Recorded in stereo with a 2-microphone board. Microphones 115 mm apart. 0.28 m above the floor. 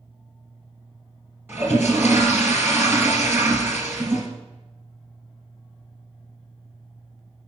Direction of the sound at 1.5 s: 20° right (ahead or behind).